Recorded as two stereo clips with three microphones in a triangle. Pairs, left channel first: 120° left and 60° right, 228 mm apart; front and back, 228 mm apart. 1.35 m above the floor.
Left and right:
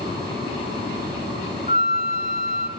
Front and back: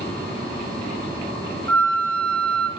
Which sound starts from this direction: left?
A flute, at 1.7 s.